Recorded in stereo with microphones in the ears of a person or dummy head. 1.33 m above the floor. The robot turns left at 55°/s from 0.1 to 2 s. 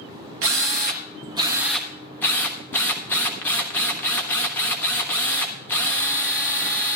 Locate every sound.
0.4 s a drill: 105° right, 1.1 m; by 7.0 s 170° left, 1.1 m